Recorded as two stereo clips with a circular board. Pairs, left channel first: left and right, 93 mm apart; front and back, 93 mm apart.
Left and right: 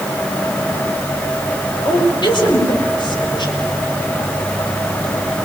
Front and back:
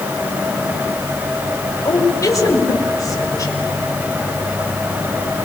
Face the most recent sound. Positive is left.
turn(degrees=55)